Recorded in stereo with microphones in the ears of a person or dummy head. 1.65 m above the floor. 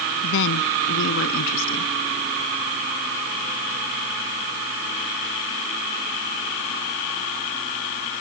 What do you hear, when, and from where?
0.2 s a woman speaking: 70° left (ahead or behind); by 1.9 s 75° left (ahead or behind)